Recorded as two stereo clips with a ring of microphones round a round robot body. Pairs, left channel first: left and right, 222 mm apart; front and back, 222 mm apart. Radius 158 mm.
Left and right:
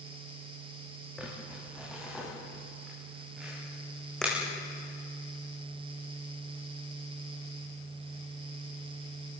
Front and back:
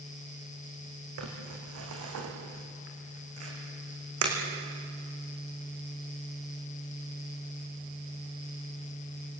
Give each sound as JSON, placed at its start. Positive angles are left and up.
{"t": 1.2, "sound": "crumpling", "azimuth_deg": 180, "distance_m": 6.0}